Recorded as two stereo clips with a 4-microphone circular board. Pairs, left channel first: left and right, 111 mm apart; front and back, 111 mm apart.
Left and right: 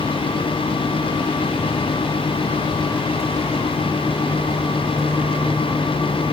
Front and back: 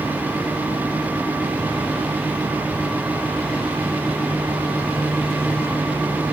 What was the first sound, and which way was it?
Only background noise.